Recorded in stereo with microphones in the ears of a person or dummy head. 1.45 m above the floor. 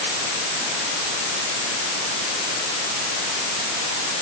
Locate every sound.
Only background noise.